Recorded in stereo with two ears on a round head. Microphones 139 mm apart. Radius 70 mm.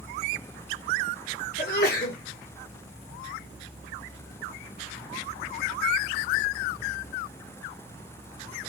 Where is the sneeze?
65° left (ahead or behind), 1.6 m.